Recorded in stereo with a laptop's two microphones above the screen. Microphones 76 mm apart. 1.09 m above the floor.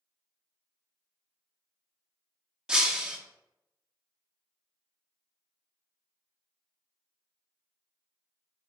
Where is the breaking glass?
10° right (ahead or behind), 0.7 m.